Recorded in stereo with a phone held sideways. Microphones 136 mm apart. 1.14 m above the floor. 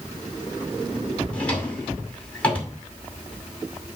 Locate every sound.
1.3 s a drawer: 10° left (ahead or behind), 2 m